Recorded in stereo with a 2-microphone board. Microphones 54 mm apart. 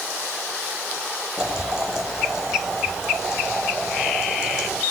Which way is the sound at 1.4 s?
5° right (ahead or behind).